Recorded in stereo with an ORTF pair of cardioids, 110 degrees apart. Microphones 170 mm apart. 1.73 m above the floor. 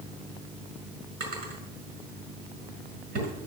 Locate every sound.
1.2 s a drawer: 65° right, 6 m